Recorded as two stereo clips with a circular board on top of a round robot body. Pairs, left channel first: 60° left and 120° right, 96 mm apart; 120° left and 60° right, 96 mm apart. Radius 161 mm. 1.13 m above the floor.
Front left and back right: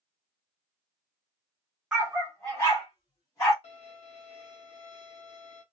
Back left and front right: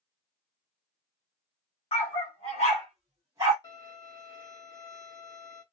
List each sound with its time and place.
1.9 s a dog barking: 155° left, 1.2 m; by 3.5 s 5° right, 1.1 m
3.6 s a violin: 70° left, 1.1 m